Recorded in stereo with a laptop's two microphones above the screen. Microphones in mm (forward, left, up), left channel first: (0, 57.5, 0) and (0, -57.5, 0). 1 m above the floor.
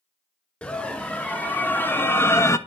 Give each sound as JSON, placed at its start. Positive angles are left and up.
{"t": 0.6, "sound": "a scream", "side_deg": 10, "distance_m": 3.0}